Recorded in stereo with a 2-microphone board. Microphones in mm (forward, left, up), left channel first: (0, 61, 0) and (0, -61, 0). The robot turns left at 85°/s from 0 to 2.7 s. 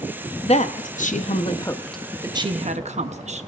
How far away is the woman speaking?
About 0.8 m.